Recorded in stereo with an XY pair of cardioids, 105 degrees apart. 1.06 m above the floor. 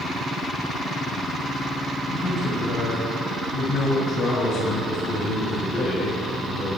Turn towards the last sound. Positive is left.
turn(degrees=55)